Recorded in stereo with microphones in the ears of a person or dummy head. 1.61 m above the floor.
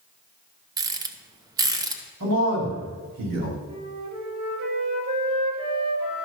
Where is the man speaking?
70° right (ahead or behind), 4.5 m.